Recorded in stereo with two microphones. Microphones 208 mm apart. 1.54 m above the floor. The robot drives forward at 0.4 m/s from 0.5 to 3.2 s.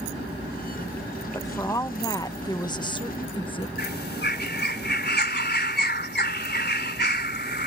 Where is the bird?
50° left (ahead or behind).